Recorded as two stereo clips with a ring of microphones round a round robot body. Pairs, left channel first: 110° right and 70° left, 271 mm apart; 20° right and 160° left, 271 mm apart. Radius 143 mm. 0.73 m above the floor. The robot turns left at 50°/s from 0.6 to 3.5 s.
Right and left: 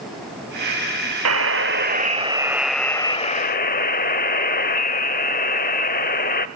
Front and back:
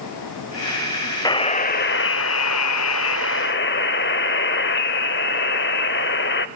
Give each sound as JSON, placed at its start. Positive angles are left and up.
{"t": 1.2, "sound": "a buzzer", "azimuth_deg": 50, "distance_m": 0.6}